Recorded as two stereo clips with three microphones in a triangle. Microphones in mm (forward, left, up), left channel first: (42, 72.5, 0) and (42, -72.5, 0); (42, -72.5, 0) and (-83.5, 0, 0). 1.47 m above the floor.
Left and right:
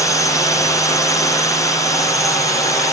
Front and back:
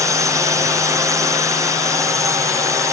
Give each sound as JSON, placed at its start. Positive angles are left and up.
{"t": 0.0, "sound": "a drone", "azimuth_deg": 120}